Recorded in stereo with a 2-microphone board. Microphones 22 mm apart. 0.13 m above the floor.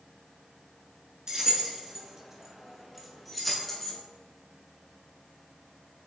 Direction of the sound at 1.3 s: 35° right (ahead or behind).